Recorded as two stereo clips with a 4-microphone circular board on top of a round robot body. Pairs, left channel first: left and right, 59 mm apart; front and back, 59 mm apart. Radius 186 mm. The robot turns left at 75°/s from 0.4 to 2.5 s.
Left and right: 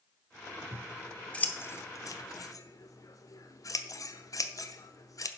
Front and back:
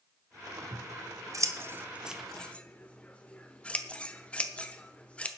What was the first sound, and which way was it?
Scissors, 155° right.